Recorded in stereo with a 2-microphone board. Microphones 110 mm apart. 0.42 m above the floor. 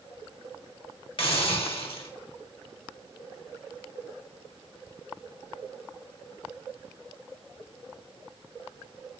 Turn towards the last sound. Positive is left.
turn(degrees=55)  # may be behind; listen again after turning